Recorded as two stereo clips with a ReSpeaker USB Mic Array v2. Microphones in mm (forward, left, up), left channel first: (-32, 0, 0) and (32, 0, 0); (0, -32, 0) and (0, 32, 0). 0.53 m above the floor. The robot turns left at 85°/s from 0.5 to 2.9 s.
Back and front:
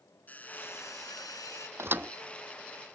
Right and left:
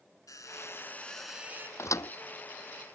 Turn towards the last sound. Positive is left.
turn(degrees=-140)